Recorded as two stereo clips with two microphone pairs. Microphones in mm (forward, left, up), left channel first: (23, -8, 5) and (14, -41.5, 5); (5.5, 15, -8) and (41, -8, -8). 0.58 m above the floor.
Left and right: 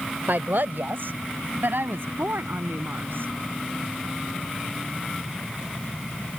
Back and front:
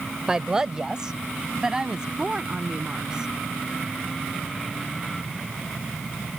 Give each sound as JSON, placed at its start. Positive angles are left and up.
{"t": 0.3, "sound": "a woman speaking", "azimuth_deg": -105}